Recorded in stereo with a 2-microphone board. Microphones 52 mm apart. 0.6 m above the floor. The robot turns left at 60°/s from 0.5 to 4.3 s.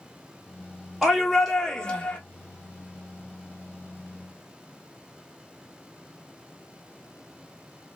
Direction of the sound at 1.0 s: 155° right.